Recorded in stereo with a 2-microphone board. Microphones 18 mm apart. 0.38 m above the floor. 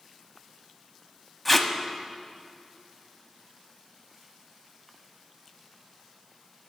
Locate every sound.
1.4 s tape being pulled: 20° left (ahead or behind), 0.7 m